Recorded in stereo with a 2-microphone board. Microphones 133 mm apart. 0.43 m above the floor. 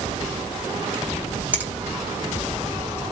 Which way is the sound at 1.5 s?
15° right (ahead or behind).